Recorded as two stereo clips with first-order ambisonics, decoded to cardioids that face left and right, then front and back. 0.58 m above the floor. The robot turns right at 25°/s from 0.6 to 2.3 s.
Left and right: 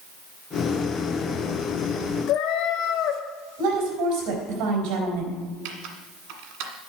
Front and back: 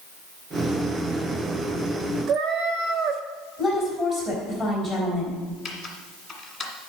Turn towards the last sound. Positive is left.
turn(degrees=-85)